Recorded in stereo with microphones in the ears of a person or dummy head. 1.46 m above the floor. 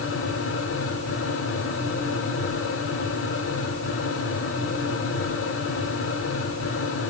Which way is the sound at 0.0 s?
65° left (ahead or behind).